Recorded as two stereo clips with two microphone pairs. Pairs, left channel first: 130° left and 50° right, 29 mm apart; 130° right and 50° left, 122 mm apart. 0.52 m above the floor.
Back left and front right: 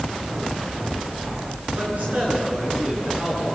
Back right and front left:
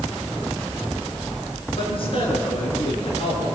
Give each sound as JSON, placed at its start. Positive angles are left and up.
{"t": 1.8, "sound": "a man speaking", "azimuth_deg": -85, "distance_m": 8.5}